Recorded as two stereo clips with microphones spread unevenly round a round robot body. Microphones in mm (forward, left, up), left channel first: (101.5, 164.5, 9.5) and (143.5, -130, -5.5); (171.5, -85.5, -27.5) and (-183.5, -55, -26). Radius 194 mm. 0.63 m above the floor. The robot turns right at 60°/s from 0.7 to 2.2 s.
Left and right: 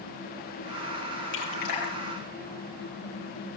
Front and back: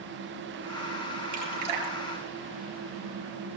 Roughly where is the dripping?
Behind left.